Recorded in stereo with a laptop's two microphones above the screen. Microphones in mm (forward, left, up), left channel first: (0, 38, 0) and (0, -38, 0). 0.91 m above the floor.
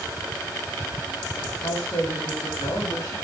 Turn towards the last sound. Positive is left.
turn(degrees=75)  # may be behind; listen again after turning